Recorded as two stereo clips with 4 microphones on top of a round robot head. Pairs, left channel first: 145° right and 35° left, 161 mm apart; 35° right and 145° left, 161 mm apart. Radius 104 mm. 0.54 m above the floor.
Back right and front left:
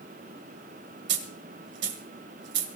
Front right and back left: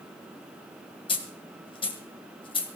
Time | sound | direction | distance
1.1 | a dropped coin | 30° left | 1.6 m